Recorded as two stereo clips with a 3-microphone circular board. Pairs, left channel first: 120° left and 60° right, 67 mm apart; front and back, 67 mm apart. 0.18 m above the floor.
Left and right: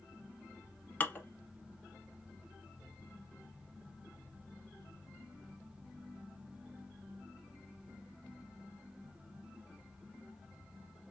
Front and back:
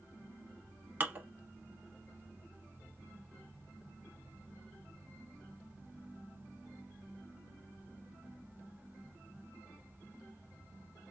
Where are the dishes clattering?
155° left, 0.9 m.